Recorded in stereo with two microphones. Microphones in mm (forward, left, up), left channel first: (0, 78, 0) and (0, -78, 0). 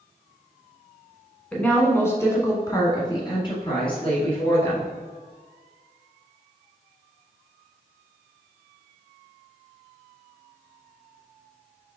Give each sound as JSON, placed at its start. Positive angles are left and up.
{"t": 1.5, "sound": "a woman speaking", "side_deg": 5, "distance_m": 1.3}